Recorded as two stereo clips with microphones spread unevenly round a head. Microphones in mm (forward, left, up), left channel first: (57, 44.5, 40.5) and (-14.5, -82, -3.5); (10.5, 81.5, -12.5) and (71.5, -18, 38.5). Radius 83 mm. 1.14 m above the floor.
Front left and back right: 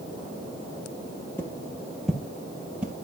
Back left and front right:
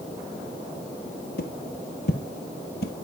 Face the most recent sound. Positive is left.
turn(degrees=150)